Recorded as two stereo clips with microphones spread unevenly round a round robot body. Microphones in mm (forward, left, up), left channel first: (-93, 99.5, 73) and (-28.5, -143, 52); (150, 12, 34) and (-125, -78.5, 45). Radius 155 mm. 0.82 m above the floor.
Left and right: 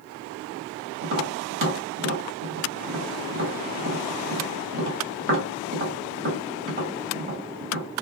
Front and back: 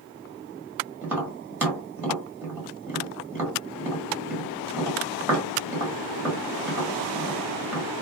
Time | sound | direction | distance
1.0 | tapping | 80° right | 1.7 m